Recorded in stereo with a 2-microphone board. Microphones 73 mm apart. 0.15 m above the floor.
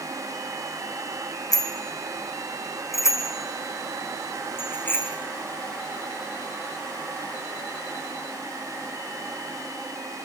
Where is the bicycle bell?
55° left (ahead or behind), 5.5 m; by 5.1 s 25° left (ahead or behind), 7 m.